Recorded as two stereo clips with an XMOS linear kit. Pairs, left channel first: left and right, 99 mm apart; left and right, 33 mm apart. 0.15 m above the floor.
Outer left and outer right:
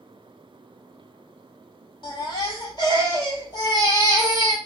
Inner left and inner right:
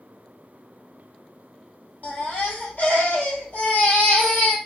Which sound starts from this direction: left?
A baby crying, at 2.0 s.